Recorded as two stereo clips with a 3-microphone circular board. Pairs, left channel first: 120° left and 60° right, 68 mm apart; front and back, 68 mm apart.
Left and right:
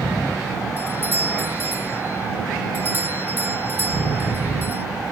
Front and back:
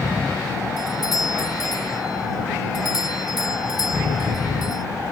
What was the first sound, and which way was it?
A doorbell, straight ahead.